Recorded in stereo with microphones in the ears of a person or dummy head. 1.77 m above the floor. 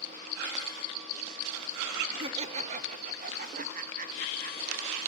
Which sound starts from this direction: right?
Laughter, at 2.2 s.